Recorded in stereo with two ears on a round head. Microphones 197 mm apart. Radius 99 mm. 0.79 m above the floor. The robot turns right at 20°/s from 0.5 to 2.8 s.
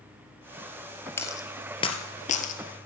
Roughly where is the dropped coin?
Centre.